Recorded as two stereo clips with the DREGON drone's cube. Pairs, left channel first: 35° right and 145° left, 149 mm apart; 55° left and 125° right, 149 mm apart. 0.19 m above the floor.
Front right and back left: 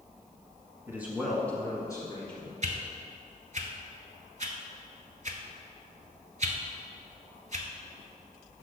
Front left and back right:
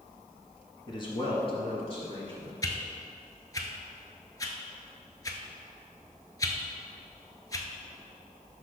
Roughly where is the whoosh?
Behind left.